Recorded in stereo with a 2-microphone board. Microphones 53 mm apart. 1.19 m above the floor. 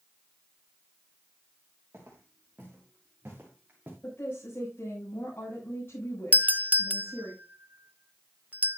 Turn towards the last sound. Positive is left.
turn(degrees=-30)  # may be behind; listen again after turning